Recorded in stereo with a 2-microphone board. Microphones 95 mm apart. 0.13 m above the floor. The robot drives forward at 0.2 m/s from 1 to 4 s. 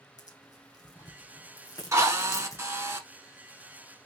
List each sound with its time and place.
0.2 s tearing paper: 35° left (ahead or behind), 1.9 m; by 2.6 s 30° left (ahead or behind), 2 m
1.9 s a drill: 35° right (ahead or behind), 0.9 m; by 3.0 s 30° right (ahead or behind), 0.9 m